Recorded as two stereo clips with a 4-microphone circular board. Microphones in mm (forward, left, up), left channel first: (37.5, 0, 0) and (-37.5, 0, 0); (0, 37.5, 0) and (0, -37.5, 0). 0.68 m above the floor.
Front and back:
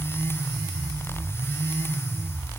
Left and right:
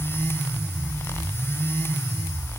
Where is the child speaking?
I don't hear a child speaking.